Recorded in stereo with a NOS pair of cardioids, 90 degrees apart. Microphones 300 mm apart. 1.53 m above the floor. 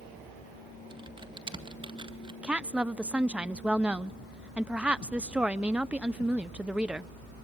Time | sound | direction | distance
0.9 | typing on a keyboard | 15° right | 1.7 m
2.4 | a woman speaking | 5° right | 0.8 m